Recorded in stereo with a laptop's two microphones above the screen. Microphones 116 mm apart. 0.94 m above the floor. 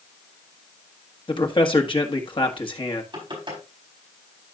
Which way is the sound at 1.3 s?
45° left (ahead or behind).